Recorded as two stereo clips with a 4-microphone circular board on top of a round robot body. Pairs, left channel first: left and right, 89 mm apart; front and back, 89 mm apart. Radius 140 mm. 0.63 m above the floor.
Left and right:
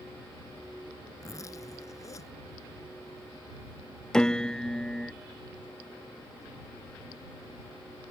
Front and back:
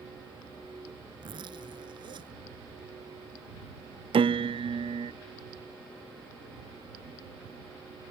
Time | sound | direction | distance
1.2 | a zipper | 145° left | ?
4.1 | a piano | 175° left | ?